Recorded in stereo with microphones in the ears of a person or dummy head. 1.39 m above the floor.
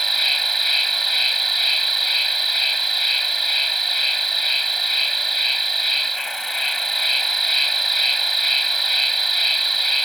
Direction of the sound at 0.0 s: 5° left (ahead or behind).